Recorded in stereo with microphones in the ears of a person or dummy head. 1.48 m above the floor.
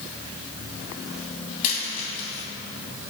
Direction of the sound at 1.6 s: 40° left (ahead or behind).